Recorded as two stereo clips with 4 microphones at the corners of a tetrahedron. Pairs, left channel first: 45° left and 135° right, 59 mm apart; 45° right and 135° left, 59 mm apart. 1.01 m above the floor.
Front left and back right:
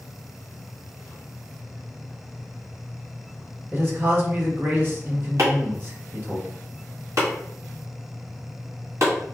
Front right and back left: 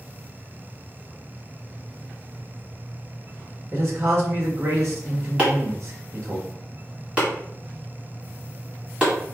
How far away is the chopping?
About 1.6 m.